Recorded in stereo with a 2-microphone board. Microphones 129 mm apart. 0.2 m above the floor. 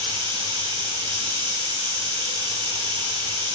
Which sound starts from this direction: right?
Running water, at 0.0 s.